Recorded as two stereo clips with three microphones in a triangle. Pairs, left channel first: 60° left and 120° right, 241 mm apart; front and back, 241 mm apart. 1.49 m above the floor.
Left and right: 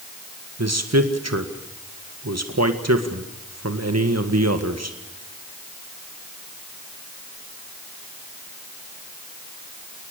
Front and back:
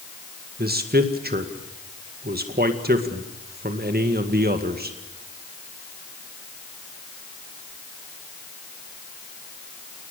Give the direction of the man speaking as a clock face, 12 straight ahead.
4 o'clock.